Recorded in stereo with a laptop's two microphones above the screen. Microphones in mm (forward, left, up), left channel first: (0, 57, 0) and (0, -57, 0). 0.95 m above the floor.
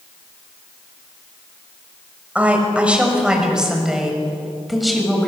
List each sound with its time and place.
2.4 s a woman speaking: 10° right (ahead or behind), 6 m; by 5.3 s centre (ahead or behind), 6.5 m